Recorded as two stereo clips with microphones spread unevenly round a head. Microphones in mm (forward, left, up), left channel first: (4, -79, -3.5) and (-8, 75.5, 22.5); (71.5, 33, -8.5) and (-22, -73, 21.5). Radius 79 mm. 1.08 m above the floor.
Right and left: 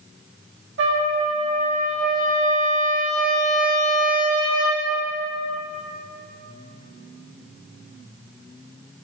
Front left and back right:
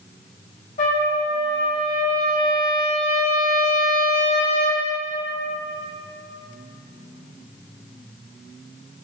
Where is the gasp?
No gasp in this recording.